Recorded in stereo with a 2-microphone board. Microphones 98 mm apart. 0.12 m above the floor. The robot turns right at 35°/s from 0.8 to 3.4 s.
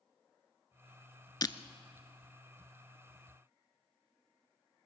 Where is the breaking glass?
40° left (ahead or behind), 0.7 m.